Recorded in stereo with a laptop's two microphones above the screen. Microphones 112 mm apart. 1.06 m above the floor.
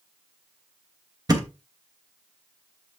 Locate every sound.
1.3 s a thud: 35° right (ahead or behind), 1.0 m